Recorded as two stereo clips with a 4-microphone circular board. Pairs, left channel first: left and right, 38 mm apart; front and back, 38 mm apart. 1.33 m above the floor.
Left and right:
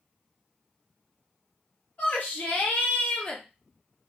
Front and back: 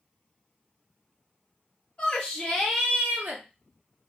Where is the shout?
55° left, 1.1 m; by 3.4 s 165° left, 0.8 m.